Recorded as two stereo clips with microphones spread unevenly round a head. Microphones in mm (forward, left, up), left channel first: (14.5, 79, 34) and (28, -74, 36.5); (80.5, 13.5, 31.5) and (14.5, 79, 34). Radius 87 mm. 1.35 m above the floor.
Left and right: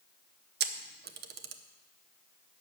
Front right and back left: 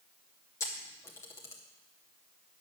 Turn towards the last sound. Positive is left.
turn(degrees=-115)